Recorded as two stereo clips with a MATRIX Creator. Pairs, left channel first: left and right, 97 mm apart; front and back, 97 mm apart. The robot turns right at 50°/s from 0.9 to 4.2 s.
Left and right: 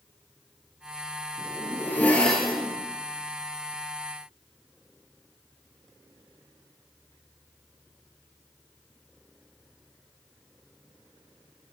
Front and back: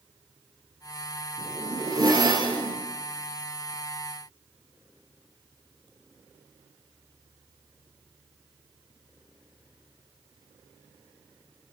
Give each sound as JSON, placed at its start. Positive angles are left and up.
{"t": 1.4, "sound": "a zipper", "azimuth_deg": 125, "distance_m": 1.0}